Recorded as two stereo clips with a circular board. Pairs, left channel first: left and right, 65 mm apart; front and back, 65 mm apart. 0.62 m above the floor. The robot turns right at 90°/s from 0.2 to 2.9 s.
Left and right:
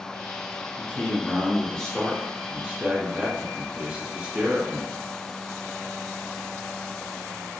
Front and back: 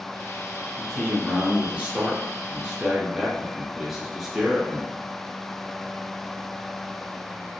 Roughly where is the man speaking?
Ahead left.